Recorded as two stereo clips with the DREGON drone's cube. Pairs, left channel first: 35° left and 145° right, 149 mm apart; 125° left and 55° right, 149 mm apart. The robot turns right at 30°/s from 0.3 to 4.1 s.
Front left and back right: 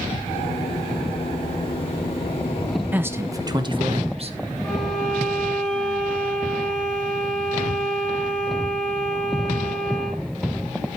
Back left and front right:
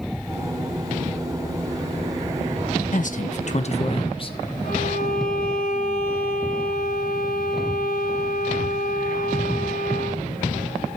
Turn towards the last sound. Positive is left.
turn(degrees=125)